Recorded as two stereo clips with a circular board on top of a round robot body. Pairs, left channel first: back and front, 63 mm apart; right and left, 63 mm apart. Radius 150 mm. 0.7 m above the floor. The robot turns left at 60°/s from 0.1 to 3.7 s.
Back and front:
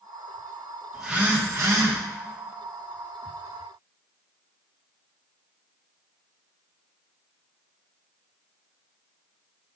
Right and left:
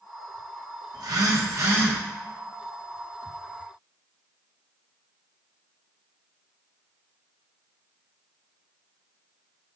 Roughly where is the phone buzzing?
Left.